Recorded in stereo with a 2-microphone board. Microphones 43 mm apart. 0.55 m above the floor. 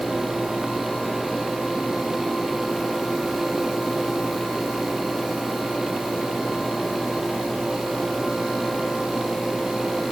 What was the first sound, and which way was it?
Only background noise.